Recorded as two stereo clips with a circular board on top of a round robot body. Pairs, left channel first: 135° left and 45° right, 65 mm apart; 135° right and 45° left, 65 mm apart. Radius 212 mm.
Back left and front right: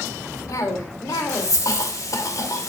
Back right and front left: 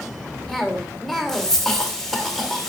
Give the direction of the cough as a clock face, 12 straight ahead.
7 o'clock.